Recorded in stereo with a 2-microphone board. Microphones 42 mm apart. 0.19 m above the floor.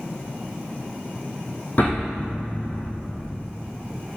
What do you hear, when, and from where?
1.8 s an explosion: 45° left (ahead or behind), 3 m